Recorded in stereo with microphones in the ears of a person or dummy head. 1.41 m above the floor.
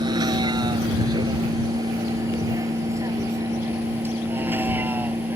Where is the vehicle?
25° right (ahead or behind); by 5.4 s 15° right (ahead or behind).